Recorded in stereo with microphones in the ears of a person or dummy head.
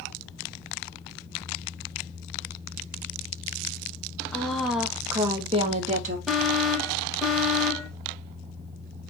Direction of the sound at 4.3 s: 10° left (ahead or behind).